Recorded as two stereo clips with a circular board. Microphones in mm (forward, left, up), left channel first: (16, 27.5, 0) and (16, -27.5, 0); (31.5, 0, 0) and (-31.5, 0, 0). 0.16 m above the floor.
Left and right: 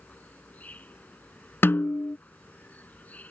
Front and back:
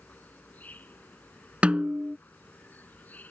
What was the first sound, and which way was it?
An insect, 50° left.